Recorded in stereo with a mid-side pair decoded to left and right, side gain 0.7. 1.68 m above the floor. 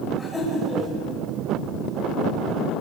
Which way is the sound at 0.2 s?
5° left.